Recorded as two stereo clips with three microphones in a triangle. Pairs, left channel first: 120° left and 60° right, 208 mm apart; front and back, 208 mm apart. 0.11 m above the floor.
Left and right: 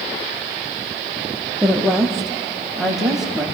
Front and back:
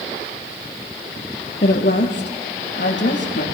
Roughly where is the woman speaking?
Ahead left.